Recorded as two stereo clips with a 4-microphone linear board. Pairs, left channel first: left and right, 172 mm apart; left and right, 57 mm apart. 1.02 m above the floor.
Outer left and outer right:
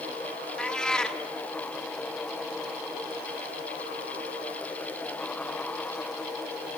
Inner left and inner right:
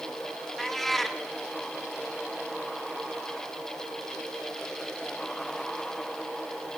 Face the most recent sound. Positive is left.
turn(degrees=5)  # may be behind; listen again after turning